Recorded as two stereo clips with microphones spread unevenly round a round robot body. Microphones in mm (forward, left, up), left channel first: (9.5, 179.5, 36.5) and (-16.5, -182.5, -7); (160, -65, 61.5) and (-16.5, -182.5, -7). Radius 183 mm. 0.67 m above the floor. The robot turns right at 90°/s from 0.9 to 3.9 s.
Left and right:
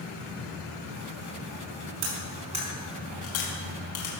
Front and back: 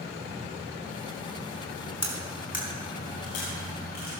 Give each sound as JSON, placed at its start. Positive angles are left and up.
{"t": 2.0, "sound": "cutlery clinking", "azimuth_deg": -65, "distance_m": 4.5}